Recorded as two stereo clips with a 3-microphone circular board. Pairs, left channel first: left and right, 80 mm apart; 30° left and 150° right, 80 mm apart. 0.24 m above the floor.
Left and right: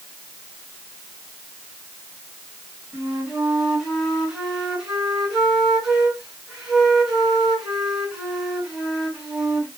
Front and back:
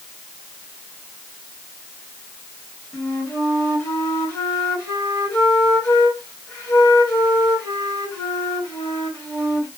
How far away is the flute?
About 1.9 m.